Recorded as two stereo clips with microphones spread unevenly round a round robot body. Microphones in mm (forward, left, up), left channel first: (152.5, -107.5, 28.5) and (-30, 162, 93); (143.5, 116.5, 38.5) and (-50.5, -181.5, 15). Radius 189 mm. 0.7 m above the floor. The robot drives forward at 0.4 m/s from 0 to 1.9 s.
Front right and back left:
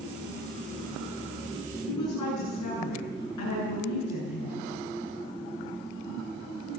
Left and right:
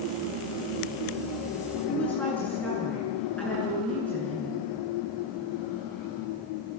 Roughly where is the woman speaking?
Ahead right.